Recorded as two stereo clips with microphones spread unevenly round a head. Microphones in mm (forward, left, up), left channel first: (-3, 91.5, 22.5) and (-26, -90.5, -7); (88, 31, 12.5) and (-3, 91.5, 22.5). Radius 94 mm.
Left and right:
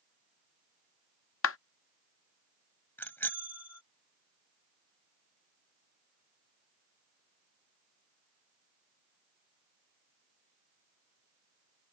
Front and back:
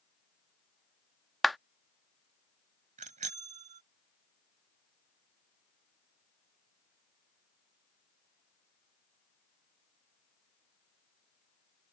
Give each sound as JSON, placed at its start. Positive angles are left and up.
{"t": 1.4, "sound": "a clap", "azimuth_deg": 55}
{"t": 3.0, "sound": "a bicycle bell", "azimuth_deg": 160}